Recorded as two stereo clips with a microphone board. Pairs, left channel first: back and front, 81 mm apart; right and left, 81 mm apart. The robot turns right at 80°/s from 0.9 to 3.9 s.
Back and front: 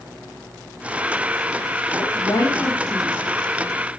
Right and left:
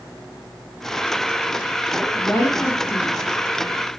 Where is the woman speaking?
Straight behind, 2.5 m; by 3.1 s 85° right, 2.5 m.